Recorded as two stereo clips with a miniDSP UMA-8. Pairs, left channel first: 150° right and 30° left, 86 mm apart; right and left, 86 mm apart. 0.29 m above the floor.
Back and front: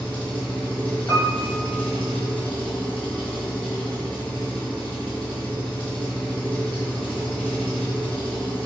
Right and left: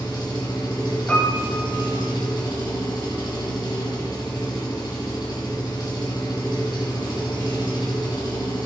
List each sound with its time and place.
0.0 s an engine running: 75° right, 2 m
1.1 s a piano: 150° right, 1.6 m